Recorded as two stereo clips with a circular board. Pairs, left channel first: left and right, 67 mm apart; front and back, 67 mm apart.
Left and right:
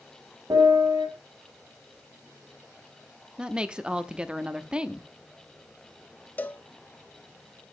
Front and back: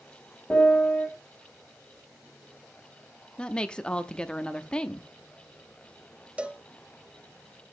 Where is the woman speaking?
45° right, 0.7 m.